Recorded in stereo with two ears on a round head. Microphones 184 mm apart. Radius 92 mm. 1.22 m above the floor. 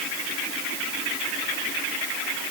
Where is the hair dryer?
I don't hear a hair dryer.